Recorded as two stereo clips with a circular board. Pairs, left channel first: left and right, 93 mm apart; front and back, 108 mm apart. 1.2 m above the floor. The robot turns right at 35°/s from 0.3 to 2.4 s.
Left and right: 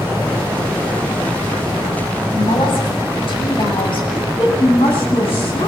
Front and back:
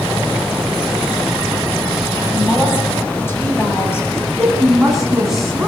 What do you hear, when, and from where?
2.3 s a woman speaking: 65° left, 7.5 m
4.1 s a woman speaking: 95° left, 9 m